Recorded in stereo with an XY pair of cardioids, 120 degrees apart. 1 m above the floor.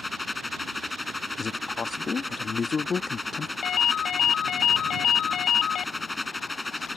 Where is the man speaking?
35° left.